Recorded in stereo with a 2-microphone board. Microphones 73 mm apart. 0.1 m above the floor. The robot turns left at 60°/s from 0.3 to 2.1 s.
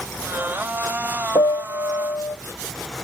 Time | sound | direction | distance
1.4 | a piano | 90° left | 0.6 m